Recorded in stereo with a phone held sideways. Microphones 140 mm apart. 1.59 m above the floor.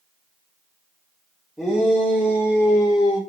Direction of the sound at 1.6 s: 5° left (ahead or behind).